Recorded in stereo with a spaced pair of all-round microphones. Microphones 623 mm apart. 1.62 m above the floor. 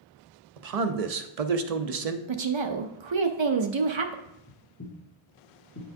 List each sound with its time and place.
0.6 s a man speaking: 70° right (ahead or behind), 0.6 m
2.3 s a woman speaking: 50° right (ahead or behind), 0.5 m
4.2 s footsteps: 20° left (ahead or behind), 2.5 m; by 5.9 s 30° left (ahead or behind), 1.9 m